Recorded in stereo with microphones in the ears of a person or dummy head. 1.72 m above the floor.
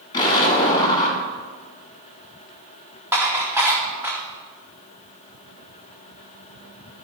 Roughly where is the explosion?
Left.